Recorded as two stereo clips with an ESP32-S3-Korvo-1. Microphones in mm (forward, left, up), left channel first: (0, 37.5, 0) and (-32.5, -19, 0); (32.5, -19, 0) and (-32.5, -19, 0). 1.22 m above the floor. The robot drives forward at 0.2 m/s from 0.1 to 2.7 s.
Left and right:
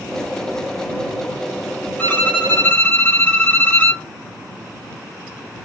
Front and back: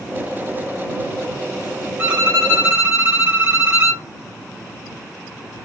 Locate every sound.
2.0 s a violin: 120° left, 1.7 m; by 4.0 s 125° left, 1.8 m